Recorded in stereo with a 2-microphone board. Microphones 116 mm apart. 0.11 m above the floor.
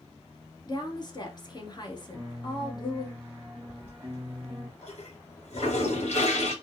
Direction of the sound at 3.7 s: 65° left (ahead or behind).